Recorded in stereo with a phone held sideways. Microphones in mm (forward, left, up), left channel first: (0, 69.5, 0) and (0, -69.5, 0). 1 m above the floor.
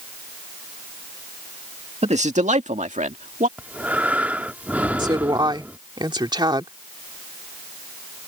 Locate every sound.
2.0 s a man speaking: 55° right (ahead or behind); by 3.5 s 75° right (ahead or behind)
3.6 s breathing: 10° right (ahead or behind)
5.0 s a woman speaking: 35° right (ahead or behind)